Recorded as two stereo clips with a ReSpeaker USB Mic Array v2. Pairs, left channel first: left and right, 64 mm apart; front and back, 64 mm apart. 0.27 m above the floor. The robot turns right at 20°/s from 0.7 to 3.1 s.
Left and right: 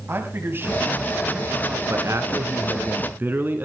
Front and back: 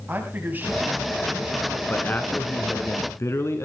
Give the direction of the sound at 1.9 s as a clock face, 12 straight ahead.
2 o'clock.